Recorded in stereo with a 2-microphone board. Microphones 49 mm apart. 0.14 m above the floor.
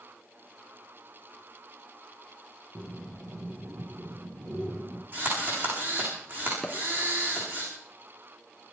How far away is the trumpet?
I don't hear a trumpet.